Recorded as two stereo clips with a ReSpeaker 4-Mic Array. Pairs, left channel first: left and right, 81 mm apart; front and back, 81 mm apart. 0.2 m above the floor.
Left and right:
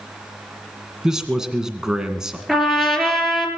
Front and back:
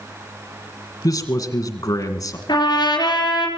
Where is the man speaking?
10° right, 2.0 m.